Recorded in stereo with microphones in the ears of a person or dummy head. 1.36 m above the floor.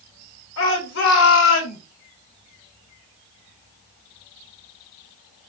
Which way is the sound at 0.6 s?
80° left.